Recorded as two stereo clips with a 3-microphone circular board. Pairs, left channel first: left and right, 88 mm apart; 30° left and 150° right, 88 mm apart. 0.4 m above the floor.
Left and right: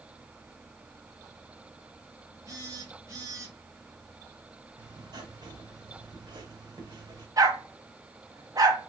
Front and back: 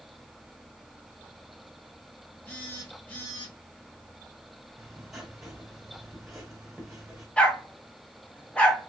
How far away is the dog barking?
About 0.9 m.